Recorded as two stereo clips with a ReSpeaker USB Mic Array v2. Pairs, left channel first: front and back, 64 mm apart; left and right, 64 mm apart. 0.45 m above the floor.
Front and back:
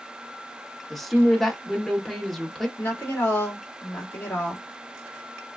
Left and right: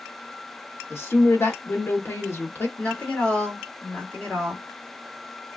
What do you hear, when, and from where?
0.9 s a woman speaking: 85° left, 0.9 m
2.8 s a woman speaking: 35° left, 1.5 m